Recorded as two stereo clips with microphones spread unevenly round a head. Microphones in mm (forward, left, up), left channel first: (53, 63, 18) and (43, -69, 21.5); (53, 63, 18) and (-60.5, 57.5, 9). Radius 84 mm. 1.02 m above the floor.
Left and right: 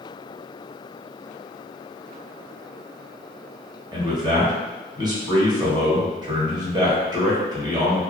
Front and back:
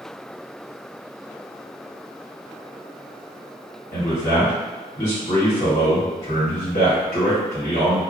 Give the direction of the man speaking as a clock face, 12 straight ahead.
1 o'clock.